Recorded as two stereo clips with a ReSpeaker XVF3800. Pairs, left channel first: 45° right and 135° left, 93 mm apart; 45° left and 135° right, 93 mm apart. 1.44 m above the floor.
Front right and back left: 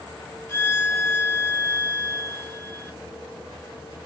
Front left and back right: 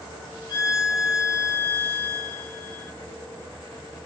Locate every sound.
0.5 s a violin: 10° left, 1.1 m